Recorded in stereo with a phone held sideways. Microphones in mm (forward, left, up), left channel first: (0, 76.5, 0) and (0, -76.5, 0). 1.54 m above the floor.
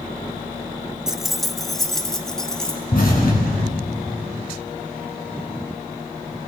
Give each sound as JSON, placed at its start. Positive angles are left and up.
{"t": 1.1, "sound": "keys jangling", "side_deg": -5, "distance_m": 0.8}
{"t": 2.9, "sound": "an explosion", "side_deg": 65, "distance_m": 7.0}